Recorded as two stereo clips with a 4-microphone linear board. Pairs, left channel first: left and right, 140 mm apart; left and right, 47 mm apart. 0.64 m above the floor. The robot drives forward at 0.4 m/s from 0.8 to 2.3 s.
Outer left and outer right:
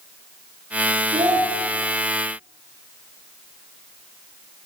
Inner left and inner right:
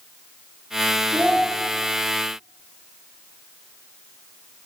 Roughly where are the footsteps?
No footsteps in this recording.